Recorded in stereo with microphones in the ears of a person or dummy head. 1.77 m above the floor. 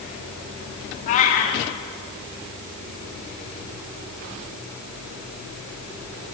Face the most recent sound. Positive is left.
turn(degrees=45)  # may be behind; listen again after turning